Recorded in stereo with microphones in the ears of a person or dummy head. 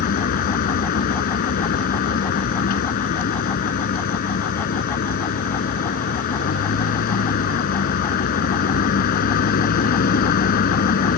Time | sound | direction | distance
0.0 | a vehicle | 60° left (ahead or behind) | ?